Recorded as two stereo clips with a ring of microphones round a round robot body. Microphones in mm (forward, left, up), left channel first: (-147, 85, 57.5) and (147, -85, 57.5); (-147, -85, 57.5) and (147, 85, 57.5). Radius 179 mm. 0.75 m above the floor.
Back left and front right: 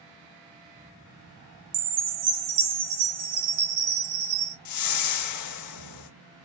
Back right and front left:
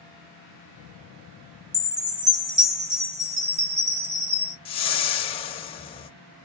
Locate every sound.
1.7 s a chime: 40° right, 1.9 m
4.7 s a whoosh: 140° left, 0.6 m